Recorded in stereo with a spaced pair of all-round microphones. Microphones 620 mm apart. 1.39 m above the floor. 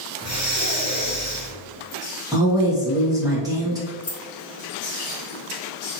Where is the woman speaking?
5° right (ahead or behind), 1.0 m.